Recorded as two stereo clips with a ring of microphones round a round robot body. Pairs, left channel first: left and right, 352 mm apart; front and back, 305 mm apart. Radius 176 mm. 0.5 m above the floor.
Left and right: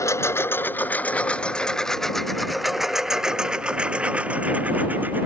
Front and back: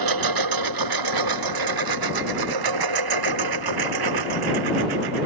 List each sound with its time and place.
0.0 s a lawn mower: 170° left; by 5.3 s 175° right